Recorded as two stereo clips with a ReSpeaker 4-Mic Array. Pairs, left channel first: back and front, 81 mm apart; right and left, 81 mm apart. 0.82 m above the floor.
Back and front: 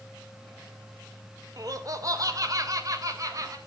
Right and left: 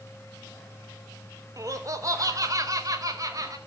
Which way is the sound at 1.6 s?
45° left.